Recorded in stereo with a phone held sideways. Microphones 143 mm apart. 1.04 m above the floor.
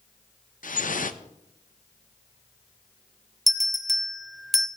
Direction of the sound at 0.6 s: 70° left (ahead or behind).